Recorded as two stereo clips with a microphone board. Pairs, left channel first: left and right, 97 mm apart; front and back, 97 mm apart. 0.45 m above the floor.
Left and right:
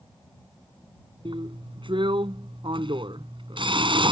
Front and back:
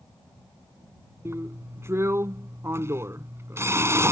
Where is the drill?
120° right.